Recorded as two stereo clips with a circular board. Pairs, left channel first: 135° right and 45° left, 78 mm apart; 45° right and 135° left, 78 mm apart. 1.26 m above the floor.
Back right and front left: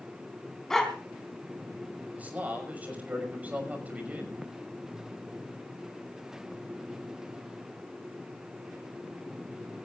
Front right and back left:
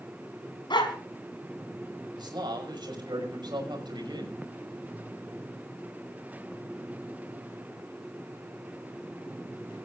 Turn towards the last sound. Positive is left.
turn(degrees=115)